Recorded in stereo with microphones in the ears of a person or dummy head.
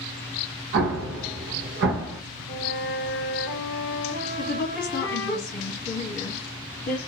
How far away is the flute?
About 1.6 m.